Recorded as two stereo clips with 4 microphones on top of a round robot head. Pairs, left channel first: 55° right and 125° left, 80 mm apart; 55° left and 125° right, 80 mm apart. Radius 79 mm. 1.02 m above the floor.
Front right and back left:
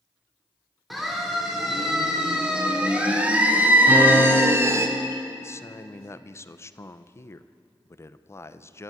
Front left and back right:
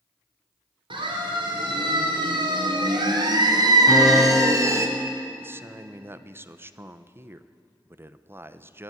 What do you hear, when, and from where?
0.9 s a siren: 145° right, 4 m; by 4.9 s straight behind, 2.0 m
3.9 s a piano: 170° left, 9 m
5.4 s a man speaking: 85° right, 1.0 m